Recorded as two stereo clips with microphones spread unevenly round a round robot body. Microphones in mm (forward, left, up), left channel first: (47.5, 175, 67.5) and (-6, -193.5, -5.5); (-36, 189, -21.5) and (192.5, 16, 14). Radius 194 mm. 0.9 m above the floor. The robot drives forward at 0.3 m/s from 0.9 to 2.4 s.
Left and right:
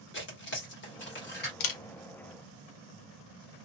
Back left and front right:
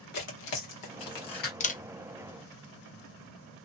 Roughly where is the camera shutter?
Left.